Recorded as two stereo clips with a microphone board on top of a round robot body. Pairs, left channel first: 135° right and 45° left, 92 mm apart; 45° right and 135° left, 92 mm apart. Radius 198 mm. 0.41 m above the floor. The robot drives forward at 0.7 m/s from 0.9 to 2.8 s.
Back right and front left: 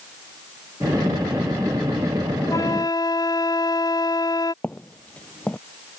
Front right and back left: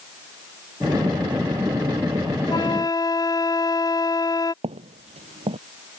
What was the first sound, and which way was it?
A flute, 85° right.